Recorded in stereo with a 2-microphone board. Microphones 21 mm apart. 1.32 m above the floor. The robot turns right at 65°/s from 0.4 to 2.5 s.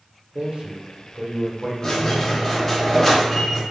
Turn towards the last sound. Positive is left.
turn(degrees=160)